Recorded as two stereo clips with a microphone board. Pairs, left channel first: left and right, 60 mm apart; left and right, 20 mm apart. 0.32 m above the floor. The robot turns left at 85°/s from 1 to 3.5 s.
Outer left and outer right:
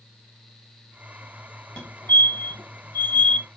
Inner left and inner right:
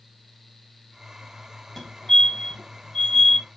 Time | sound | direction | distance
1.8 | a fire alarm | 20° left (ahead or behind) | 3 m